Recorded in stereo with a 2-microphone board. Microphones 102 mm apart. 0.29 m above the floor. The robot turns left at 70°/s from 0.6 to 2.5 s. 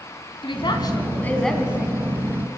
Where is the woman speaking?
65° left, 3 m; by 1.9 s 30° right, 3 m.